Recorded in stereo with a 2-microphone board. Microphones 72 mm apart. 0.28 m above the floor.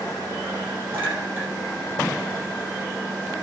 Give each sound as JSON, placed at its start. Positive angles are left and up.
{"t": 0.9, "sound": "a clink", "side_deg": -25, "distance_m": 4.5}